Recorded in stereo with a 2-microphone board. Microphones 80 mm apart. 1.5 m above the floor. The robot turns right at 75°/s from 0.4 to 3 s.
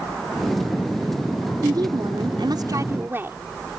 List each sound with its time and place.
1.6 s a woman speaking: 130° right; by 3.4 s 30° right